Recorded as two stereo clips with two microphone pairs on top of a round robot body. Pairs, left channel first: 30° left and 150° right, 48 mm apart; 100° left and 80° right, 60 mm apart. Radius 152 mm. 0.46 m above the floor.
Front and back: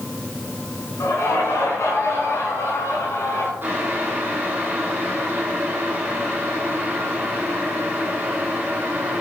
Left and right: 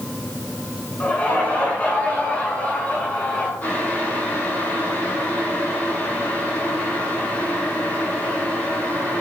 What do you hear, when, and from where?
1.0 s laughter: 35° left, 5.5 m
3.6 s boiling: 160° left, 4.5 m